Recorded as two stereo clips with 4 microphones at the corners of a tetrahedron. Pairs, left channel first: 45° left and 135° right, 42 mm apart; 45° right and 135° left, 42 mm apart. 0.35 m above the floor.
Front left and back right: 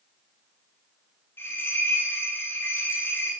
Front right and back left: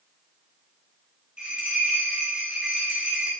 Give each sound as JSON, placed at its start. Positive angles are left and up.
{"t": 1.4, "sound": "a bell", "azimuth_deg": 70, "distance_m": 9.5}